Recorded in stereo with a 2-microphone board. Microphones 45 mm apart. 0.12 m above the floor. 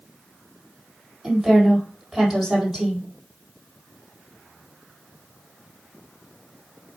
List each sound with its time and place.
1.2 s a woman speaking: 5° right (ahead or behind), 4 m